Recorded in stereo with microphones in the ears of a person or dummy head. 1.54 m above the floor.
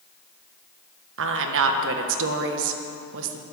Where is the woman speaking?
70° right (ahead or behind), 1.5 m.